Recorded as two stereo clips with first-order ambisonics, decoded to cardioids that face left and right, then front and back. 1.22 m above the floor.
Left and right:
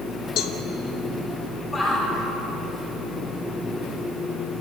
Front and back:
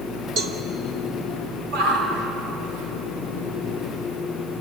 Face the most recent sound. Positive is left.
turn(degrees=170)